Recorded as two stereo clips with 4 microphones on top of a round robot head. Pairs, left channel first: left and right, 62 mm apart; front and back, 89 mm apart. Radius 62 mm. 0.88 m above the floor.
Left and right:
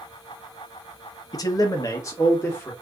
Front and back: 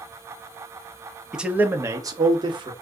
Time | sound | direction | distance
1.3 | a man speaking | 95° left | 0.8 m